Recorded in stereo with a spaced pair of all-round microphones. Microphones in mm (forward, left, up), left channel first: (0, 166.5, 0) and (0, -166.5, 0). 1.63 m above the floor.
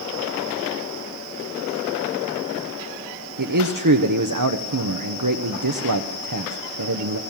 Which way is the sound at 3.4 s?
65° right (ahead or behind).